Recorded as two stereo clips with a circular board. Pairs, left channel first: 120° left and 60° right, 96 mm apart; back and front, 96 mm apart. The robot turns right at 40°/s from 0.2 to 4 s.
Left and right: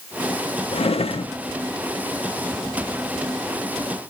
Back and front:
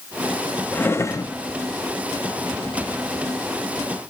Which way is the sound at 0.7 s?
105° left.